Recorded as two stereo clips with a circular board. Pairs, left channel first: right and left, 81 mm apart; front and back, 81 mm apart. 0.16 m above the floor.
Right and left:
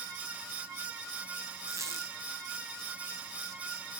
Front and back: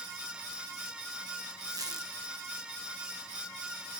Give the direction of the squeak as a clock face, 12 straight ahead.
7 o'clock.